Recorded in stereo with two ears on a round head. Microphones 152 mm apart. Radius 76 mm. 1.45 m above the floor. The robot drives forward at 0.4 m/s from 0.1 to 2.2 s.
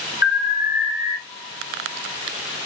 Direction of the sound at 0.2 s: 50° left (ahead or behind).